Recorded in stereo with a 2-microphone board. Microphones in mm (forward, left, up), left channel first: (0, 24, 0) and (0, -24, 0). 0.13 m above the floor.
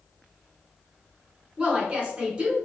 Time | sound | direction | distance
1.6 | a woman speaking | 20° right (ahead or behind) | 1.2 m